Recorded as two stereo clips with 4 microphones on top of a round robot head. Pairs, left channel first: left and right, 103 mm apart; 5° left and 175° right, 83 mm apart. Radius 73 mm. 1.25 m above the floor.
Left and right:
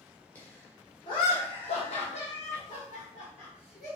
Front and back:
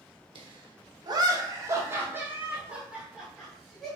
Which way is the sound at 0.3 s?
165° left.